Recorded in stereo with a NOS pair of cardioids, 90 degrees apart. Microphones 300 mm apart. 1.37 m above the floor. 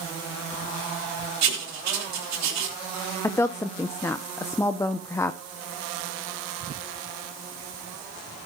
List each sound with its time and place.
1.4 s writing: 65° right, 3 m
3.2 s a woman speaking: 10° left, 0.7 m